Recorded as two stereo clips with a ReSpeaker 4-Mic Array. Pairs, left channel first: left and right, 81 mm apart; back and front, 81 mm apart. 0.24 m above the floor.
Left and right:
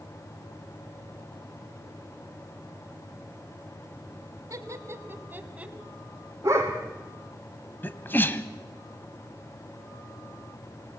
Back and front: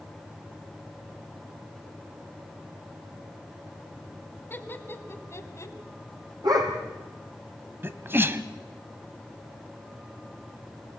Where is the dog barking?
35° right, 3.5 m.